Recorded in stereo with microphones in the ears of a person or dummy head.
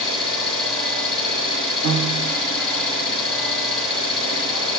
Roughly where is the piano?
Right.